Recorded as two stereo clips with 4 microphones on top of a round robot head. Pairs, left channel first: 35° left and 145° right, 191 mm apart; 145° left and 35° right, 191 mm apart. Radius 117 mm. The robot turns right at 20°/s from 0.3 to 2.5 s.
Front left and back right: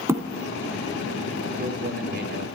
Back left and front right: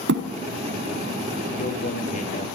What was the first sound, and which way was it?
A thud, 70° right.